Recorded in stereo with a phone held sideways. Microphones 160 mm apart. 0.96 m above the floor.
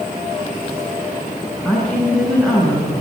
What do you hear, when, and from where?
1.6 s a woman speaking: 5° left (ahead or behind), 8.5 m